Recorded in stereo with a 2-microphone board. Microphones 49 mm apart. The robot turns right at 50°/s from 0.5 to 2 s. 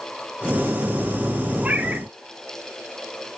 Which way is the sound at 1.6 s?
30° right (ahead or behind).